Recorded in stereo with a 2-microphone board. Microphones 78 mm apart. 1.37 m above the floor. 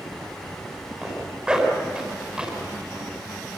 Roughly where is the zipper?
Centre.